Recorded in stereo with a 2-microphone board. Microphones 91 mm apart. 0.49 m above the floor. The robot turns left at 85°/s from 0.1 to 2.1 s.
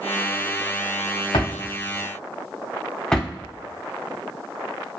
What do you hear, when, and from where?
1.3 s a drawer: 75° left (ahead or behind), 0.7 m; by 3.3 s 10° left (ahead or behind), 0.7 m